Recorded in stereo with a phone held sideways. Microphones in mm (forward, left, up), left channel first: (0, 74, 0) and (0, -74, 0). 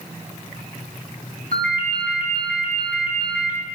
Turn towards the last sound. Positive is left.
turn(degrees=-80)